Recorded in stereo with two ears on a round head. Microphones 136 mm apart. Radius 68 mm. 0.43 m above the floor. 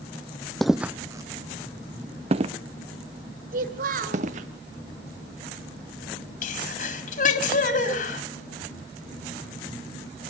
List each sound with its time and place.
0.6 s footsteps: centre (ahead or behind), 0.6 m; by 4.5 s 50° right (ahead or behind), 3 m
3.5 s a child speaking: 65° right (ahead or behind), 3 m
6.4 s a sneeze: 55° left (ahead or behind), 3.5 m